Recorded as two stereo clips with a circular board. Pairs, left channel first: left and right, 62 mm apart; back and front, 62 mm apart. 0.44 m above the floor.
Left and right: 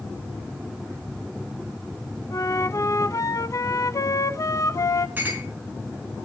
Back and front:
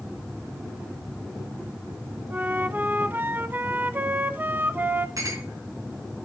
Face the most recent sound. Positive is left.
turn(degrees=-30)